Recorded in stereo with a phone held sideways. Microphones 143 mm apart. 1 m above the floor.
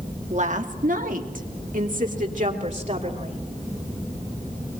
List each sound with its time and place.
0.3 s a woman speaking: 55° right (ahead or behind), 2.0 m